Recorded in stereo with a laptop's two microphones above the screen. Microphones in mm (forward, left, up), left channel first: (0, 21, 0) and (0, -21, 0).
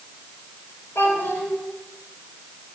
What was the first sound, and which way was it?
A child speaking, 75° left (ahead or behind).